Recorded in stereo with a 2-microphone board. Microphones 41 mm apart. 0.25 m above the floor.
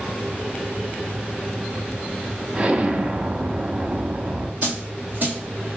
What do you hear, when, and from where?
2.5 s an explosion: 30° right (ahead or behind), 0.5 m
4.6 s a dropped coin: 50° right (ahead or behind), 1.5 m